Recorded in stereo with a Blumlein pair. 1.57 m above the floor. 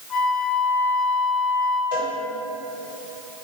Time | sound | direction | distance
0.1 | a flute | 25° left | 2.5 m
1.9 | a cowbell | 55° left | 3 m